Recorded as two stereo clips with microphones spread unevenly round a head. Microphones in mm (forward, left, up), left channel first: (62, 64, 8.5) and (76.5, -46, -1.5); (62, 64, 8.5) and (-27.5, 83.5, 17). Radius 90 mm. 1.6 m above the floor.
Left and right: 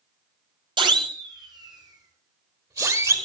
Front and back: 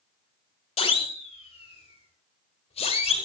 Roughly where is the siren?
Ahead right.